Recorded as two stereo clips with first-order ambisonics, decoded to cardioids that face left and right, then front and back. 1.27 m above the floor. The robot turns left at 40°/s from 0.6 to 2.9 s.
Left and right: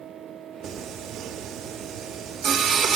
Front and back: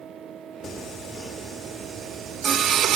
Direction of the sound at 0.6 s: 65° right.